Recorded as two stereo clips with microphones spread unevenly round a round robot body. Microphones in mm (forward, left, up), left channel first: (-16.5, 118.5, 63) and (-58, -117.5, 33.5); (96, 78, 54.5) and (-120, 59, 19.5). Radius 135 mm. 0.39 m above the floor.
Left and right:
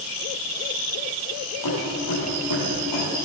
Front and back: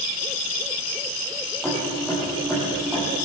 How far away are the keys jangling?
About 10 m.